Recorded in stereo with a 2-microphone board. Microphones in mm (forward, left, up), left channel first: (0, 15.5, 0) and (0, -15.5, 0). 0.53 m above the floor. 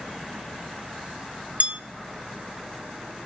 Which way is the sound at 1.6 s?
55° right (ahead or behind).